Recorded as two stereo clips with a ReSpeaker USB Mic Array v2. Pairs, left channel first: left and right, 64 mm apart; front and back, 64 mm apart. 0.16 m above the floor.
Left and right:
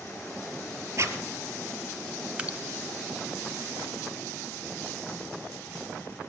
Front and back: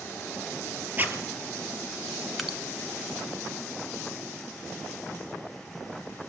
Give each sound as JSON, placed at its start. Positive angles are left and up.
{"t": 1.0, "sound": "a zipper", "azimuth_deg": -125, "distance_m": 2.5}
{"t": 2.4, "sound": "dripping", "azimuth_deg": -90, "distance_m": 1.3}